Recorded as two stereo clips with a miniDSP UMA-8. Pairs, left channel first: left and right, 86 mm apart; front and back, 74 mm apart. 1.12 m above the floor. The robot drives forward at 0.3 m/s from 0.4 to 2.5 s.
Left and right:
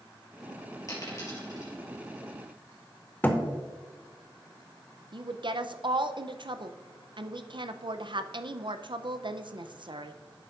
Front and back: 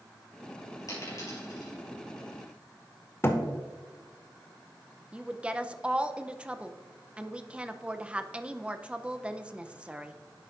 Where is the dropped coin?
40° left, 3.5 m.